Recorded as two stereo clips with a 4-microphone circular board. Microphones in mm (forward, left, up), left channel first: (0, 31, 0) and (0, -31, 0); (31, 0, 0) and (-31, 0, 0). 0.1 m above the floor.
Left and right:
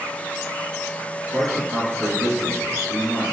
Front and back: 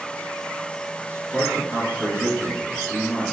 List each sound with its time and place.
1.3 s a man speaking: 80° right, 1.8 m